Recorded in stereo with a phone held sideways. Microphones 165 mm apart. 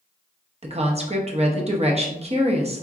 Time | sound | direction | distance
0.6 | a woman speaking | 40° right (ahead or behind) | 0.7 m